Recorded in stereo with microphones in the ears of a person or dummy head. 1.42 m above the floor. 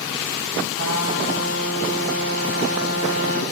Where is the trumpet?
55° right (ahead or behind), 2.5 m.